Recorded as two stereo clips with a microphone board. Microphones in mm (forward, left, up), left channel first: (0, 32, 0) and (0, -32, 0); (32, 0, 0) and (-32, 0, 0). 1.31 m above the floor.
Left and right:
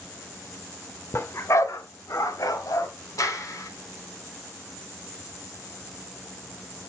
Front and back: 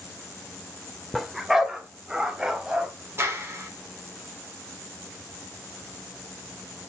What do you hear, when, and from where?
1.1 s a dog barking: 90° left, 1.2 m; by 2.9 s 105° left, 2.5 m
3.2 s a clap: 125° left, 3 m